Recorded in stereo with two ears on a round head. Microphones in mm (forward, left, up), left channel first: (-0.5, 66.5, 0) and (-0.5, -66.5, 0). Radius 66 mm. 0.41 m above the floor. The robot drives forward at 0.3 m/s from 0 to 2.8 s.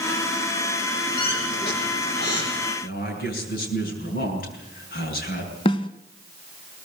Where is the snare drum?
35° left (ahead or behind), 1.3 m.